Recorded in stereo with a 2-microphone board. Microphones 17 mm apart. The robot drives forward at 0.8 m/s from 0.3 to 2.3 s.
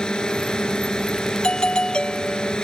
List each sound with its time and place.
0.0 s a drone: 65° left (ahead or behind)
1.4 s a doorbell: 75° left (ahead or behind)